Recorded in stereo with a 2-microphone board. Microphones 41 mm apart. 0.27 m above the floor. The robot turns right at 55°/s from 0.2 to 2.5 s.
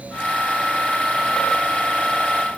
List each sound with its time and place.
Only background noise.